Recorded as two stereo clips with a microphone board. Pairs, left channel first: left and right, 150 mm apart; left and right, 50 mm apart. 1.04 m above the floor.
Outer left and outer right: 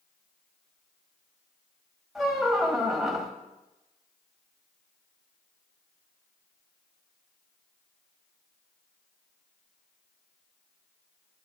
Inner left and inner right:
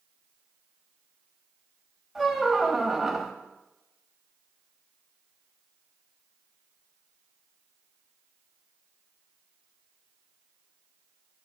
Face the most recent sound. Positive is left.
turn(degrees=0)  # may be behind; listen again after turning